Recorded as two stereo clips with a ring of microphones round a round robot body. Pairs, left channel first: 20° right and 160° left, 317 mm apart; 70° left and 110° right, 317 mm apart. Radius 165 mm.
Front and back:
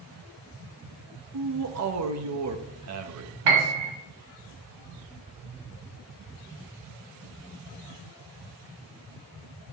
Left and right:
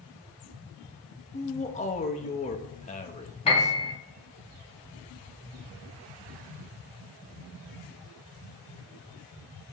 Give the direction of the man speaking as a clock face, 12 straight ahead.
8 o'clock.